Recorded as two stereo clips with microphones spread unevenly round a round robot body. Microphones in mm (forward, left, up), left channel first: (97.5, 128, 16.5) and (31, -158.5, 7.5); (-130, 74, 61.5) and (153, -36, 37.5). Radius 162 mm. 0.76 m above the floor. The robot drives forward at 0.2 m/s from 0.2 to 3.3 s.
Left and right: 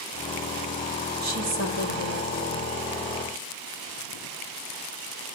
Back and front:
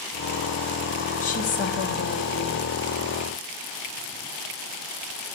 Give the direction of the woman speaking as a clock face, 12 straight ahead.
5 o'clock.